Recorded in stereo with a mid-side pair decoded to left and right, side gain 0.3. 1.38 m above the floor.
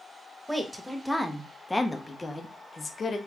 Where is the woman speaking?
10° right, 1.5 m; by 3.2 s 55° left, 1.1 m.